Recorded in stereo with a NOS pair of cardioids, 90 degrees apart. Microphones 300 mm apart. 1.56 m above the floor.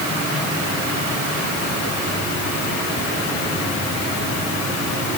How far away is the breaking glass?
I don't hear breaking glass.